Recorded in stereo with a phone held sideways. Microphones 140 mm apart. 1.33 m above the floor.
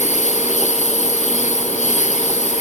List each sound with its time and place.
0.0 s a lawn mower: 60° left (ahead or behind)